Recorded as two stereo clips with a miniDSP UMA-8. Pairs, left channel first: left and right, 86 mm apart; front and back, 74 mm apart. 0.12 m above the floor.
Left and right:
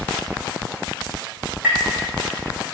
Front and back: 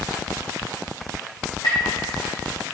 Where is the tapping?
15° right, 3 m.